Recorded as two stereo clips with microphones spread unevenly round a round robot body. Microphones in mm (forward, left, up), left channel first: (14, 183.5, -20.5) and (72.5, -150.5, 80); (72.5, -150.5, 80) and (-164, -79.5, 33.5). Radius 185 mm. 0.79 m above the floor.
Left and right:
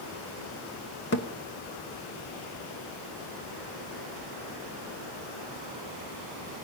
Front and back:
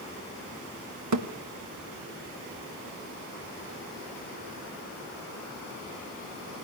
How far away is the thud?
About 1.3 m.